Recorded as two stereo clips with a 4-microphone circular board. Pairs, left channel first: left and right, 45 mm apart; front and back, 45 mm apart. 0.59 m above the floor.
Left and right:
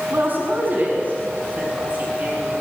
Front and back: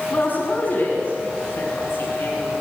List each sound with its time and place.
0.1 s a woman speaking: 50° right, 5.5 m; by 2.5 s 40° right, 8 m